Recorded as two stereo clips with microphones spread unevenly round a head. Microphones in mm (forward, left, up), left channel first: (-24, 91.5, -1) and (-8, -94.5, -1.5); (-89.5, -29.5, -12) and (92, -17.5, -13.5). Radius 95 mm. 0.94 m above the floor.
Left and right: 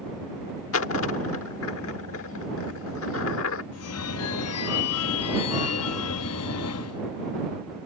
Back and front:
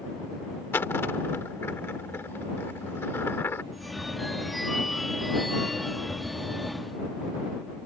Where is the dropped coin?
105° left.